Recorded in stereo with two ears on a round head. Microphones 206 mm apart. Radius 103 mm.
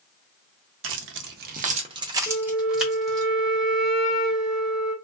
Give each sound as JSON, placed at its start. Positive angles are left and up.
{"t": 0.8, "sound": "keys jangling", "side_deg": -55, "distance_m": 0.6}
{"t": 2.3, "sound": "a flute", "side_deg": 35, "distance_m": 0.7}